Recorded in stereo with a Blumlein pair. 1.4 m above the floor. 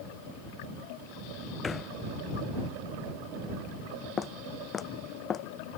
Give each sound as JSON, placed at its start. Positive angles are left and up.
{"t": 1.6, "sound": "a thud", "azimuth_deg": 15}
{"t": 4.2, "sound": "footsteps", "azimuth_deg": 15}